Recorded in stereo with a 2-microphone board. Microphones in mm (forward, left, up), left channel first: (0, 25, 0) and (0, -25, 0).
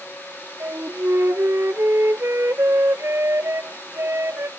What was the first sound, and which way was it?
A flute, 55° right (ahead or behind).